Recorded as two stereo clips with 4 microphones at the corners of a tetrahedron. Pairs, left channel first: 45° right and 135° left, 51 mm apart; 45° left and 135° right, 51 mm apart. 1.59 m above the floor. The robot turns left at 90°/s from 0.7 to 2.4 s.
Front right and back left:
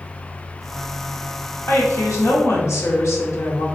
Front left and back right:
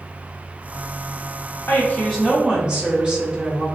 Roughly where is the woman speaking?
Ahead.